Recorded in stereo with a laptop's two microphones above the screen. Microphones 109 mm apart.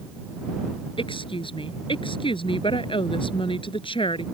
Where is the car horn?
I don't hear a car horn.